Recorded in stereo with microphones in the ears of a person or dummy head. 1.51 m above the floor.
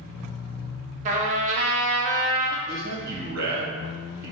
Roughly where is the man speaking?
Right.